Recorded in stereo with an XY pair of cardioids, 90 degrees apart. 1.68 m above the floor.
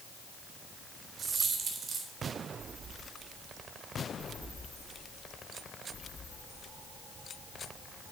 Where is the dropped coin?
55° right, 3.5 m.